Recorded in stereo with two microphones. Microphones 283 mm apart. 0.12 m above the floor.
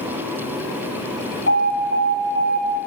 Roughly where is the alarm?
Right.